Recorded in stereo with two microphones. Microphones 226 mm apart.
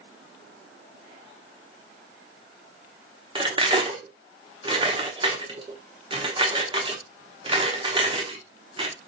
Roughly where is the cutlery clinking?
Right.